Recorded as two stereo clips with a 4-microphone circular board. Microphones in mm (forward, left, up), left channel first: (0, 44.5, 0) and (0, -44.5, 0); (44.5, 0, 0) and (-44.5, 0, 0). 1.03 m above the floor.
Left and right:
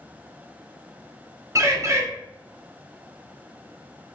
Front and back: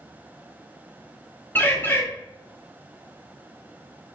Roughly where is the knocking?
No knocking in this recording.